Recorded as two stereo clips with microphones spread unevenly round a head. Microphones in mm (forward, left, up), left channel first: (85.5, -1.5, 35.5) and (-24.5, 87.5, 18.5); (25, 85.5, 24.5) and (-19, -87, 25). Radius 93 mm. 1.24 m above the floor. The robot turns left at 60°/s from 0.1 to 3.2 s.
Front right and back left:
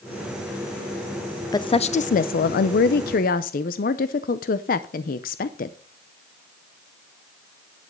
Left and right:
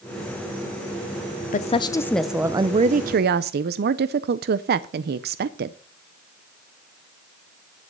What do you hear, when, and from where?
1.5 s a woman speaking: 30° left, 0.5 m; by 5.8 s 75° right, 0.5 m